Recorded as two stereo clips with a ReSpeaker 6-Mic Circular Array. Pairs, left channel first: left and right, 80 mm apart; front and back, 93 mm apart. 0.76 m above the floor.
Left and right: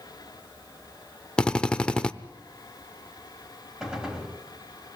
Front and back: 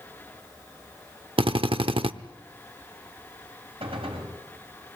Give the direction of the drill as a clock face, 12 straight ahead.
6 o'clock.